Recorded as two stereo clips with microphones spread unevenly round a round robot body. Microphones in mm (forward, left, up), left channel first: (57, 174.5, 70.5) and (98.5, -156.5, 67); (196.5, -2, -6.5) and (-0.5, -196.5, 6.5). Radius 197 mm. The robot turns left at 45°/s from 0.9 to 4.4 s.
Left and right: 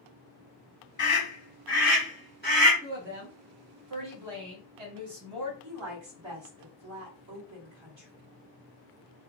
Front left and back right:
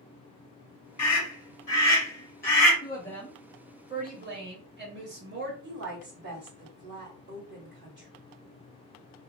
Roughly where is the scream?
Ahead left.